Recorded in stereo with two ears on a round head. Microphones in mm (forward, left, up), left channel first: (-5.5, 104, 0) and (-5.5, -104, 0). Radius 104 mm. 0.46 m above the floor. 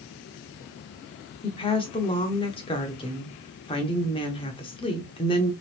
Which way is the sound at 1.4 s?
25° left (ahead or behind).